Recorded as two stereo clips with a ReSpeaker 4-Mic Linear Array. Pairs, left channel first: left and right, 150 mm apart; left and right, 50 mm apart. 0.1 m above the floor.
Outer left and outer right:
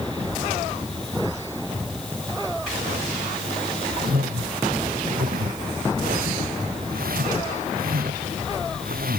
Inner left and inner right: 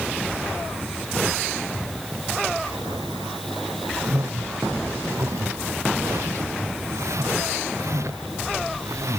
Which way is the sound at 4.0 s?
75° right (ahead or behind).